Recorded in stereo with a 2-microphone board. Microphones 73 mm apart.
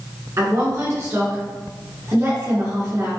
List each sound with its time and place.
0.4 s a woman speaking: 45° right (ahead or behind), 1.6 m